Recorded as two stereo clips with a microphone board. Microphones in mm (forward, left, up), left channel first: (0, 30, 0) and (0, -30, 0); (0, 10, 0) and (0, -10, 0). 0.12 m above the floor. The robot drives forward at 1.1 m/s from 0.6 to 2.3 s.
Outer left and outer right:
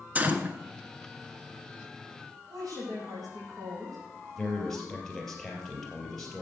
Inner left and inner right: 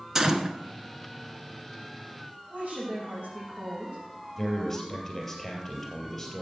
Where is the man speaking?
10° left (ahead or behind), 3 m.